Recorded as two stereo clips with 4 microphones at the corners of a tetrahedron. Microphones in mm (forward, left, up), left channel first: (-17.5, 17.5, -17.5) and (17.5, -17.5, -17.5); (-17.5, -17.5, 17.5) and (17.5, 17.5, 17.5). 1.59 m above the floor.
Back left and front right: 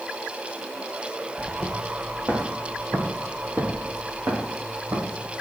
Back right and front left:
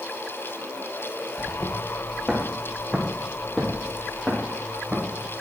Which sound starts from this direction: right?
Footsteps, at 1.4 s.